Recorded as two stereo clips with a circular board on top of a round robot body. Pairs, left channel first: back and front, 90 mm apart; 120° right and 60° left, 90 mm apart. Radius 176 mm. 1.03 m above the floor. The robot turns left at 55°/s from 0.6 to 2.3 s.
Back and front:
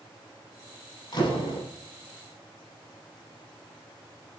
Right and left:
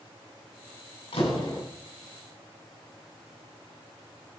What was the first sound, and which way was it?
A door slam, 135° right.